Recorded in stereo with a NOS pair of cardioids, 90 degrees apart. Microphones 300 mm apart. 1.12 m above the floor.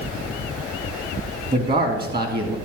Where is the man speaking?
35° right, 2 m.